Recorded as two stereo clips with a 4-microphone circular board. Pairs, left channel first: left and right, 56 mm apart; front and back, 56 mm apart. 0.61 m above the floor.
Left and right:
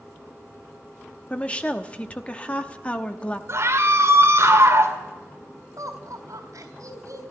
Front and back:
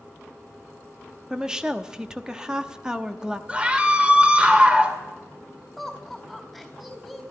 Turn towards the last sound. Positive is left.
turn(degrees=-85)